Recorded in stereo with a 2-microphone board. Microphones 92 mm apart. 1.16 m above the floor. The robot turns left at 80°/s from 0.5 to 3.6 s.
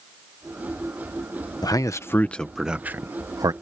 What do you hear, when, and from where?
1.6 s a man speaking: 45° left (ahead or behind); by 3.5 s 45° right (ahead or behind)